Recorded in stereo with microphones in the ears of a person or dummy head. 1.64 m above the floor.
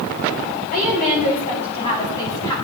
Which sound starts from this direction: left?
A woman speaking, at 0.7 s.